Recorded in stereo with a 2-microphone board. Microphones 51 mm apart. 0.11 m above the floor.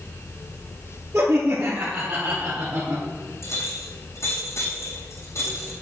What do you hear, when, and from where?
1.1 s laughter: 50° right (ahead or behind), 2 m; by 3.0 s 60° right (ahead or behind), 2.5 m
3.4 s a clink: 65° left (ahead or behind), 3.5 m